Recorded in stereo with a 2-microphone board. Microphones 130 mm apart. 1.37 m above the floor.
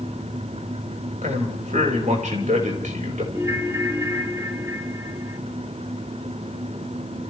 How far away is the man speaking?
About 5.5 m.